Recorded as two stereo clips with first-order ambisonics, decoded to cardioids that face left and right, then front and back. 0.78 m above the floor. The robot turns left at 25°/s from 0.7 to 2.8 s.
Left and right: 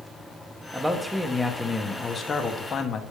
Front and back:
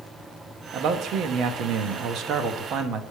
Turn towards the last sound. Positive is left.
turn(degrees=140)